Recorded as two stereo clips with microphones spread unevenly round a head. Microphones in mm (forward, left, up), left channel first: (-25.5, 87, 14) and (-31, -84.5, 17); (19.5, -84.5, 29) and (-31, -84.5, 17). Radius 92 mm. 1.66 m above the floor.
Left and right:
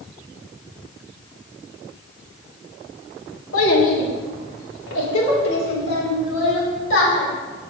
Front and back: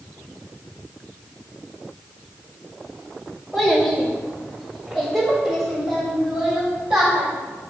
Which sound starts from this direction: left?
A child speaking, at 3.5 s.